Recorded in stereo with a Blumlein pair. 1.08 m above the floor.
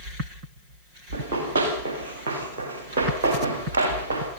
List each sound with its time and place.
1.1 s running footsteps: 60° right, 7 m